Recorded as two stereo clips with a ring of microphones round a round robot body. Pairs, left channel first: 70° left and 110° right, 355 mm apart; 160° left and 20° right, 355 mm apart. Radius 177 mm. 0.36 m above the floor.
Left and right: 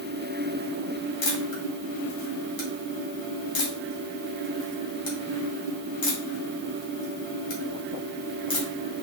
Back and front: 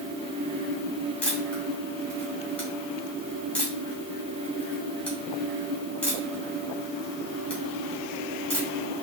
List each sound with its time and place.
1.2 s a camera shutter: 70° left, 1.8 m